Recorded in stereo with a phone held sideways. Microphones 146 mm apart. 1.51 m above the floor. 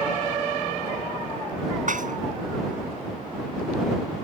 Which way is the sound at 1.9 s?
60° right (ahead or behind).